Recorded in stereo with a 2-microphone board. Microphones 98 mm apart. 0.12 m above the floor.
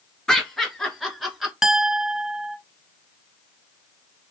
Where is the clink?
5° right (ahead or behind), 0.7 m.